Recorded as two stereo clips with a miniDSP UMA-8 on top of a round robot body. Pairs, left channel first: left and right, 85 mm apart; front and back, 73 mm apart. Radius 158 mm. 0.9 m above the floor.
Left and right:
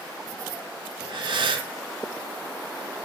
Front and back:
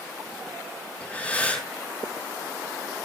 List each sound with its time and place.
1.0 s breathing: 75° right, 4.5 m